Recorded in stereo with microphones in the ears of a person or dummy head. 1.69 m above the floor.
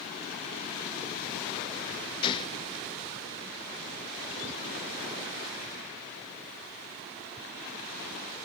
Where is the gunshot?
35° left (ahead or behind), 0.9 m.